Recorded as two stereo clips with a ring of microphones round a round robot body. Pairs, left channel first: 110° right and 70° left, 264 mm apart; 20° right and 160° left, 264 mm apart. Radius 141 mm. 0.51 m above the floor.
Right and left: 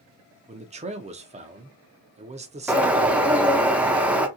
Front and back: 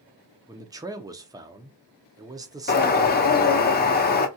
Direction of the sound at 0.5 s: 95° left.